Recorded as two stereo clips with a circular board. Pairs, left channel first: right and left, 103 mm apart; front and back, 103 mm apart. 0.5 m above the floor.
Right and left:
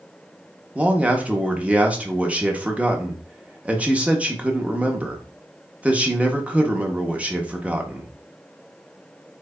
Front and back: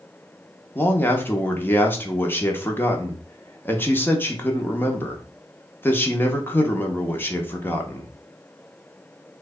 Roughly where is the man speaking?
Ahead left.